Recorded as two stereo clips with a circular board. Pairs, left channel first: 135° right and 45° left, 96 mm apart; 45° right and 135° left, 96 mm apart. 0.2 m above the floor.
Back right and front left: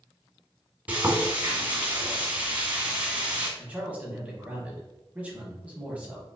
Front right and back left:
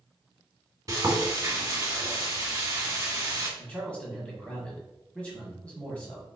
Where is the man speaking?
5° left, 1.1 m.